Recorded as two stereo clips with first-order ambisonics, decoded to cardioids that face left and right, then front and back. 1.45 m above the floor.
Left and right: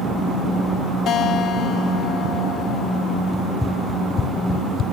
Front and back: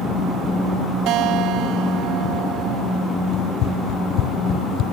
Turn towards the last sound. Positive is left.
turn(degrees=45)